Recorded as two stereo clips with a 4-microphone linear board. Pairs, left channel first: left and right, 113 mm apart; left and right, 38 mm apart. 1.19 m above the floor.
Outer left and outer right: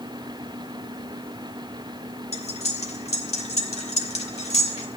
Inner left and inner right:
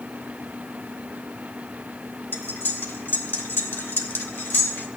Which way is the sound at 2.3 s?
70° left (ahead or behind).